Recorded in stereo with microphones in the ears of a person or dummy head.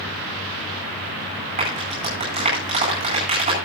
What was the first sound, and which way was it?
A clap, 35° right (ahead or behind).